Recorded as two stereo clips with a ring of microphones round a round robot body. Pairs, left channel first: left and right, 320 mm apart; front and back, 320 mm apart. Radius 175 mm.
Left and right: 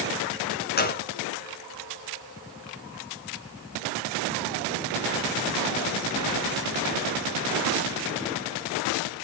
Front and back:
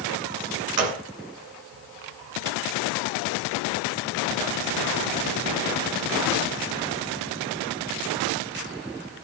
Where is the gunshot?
155° left, 2.5 m.